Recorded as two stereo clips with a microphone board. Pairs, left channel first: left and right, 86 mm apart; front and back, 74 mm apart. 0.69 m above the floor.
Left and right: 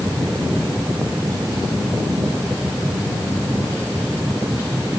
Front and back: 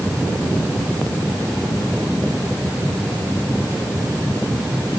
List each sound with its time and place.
Only background noise.